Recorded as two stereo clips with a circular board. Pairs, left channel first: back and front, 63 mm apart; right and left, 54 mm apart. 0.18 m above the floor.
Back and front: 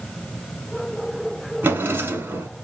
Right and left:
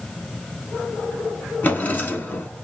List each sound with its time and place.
1.6 s a drawer: 45° right, 0.7 m